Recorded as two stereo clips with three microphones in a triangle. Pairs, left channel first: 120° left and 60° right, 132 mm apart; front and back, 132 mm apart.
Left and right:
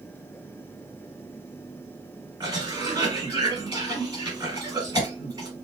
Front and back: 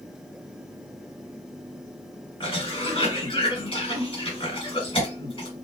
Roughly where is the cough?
Ahead.